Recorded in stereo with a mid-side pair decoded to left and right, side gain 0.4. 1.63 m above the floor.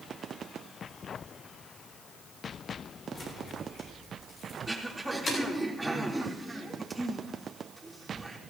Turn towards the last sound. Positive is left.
turn(degrees=-10)